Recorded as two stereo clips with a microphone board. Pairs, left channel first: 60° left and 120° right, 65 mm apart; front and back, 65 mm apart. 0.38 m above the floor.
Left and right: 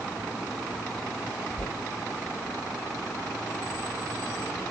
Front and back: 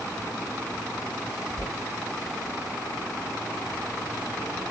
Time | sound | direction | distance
1.6 | knocking | 75° left | 1.1 m